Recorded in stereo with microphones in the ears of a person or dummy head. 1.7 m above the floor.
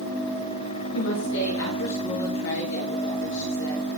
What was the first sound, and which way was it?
A woman speaking, 85° left.